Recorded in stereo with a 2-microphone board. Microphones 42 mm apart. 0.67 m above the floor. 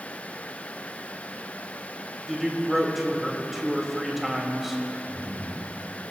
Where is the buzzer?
I don't hear a buzzer.